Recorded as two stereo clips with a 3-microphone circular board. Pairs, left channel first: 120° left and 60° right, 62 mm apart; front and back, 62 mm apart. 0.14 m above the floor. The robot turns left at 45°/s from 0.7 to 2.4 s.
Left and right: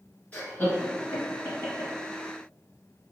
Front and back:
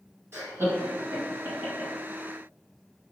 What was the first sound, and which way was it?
Laughter, 170° left.